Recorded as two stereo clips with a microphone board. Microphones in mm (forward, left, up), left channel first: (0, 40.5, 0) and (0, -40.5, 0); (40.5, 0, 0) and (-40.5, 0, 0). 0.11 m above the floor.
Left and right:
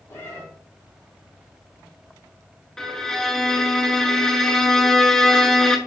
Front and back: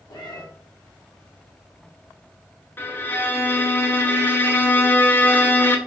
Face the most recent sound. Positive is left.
turn(degrees=15)